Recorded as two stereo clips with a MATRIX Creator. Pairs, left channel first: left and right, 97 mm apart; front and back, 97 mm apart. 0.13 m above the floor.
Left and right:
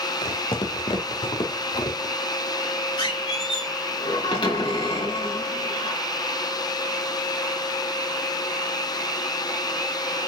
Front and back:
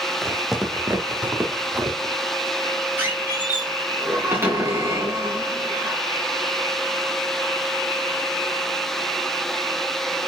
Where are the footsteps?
90° left, 2.5 m; by 2.1 s 120° left, 2.5 m.